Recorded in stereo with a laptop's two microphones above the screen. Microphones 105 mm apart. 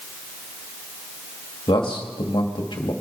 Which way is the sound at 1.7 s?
50° left (ahead or behind).